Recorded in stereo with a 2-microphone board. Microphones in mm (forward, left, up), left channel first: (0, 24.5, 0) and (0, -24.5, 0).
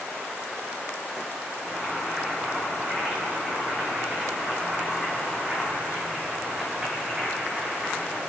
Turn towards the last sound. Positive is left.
turn(degrees=-10)  # may be behind; listen again after turning